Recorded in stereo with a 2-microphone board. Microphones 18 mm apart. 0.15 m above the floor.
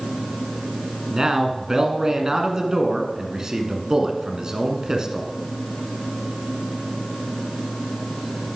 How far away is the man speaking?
About 1.3 m.